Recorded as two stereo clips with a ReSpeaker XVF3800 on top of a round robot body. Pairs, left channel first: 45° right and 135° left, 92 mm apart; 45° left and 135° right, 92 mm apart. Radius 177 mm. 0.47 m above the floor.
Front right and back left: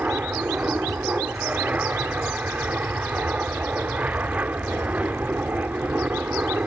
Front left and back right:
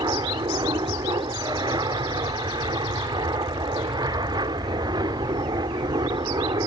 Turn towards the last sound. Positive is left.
turn(degrees=-155)